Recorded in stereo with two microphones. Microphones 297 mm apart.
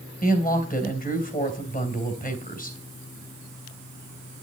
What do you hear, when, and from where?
0.2 s a woman speaking: 30° left (ahead or behind), 2.5 m